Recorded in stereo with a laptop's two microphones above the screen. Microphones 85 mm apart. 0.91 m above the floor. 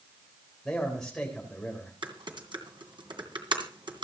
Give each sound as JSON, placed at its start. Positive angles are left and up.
{"t": 0.7, "sound": "a man speaking", "side_deg": 5, "distance_m": 3.5}
{"t": 2.0, "sound": "typing on a keyboard", "side_deg": -75, "distance_m": 2.5}